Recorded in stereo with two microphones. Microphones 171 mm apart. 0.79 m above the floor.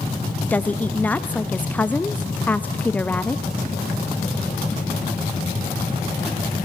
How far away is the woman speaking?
About 0.5 m.